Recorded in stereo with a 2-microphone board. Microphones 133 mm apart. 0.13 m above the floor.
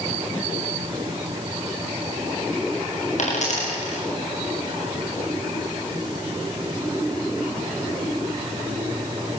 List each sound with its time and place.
3.2 s a dropped coin: 60° left (ahead or behind), 6.5 m